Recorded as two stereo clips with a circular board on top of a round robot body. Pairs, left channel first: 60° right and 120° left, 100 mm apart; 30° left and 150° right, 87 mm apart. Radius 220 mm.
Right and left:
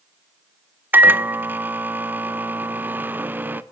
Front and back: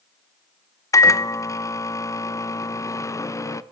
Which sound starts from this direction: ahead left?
A microwave, at 0.9 s.